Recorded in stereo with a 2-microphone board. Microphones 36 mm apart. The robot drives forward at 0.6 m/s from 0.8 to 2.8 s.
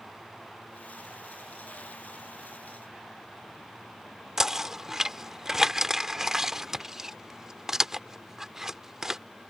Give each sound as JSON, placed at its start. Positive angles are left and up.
{"t": 4.4, "sound": "knocking", "side_deg": -15}